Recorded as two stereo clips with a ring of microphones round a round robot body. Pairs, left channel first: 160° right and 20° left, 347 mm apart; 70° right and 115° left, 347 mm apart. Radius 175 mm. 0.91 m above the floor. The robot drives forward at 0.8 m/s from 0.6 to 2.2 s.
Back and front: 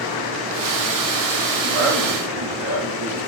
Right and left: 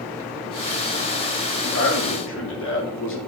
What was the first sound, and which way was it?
A man speaking, 10° right.